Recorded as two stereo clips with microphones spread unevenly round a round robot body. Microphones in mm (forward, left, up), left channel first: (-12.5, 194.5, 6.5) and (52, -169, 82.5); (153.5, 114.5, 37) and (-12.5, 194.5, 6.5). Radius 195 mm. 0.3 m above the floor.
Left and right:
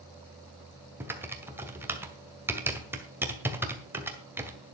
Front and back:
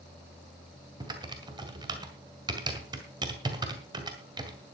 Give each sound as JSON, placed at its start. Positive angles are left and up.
{"t": 1.0, "sound": "typing on a keyboard", "azimuth_deg": -175, "distance_m": 1.8}